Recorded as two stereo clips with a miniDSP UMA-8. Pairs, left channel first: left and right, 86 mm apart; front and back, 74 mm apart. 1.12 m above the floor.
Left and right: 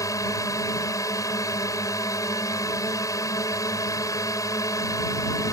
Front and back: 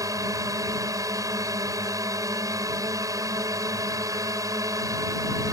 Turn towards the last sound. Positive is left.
turn(degrees=140)